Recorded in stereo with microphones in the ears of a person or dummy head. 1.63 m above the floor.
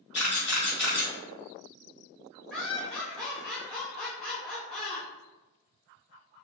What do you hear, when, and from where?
0.1 s a camera shutter: centre (ahead or behind), 1.8 m
2.5 s laughter: 5° left (ahead or behind), 0.6 m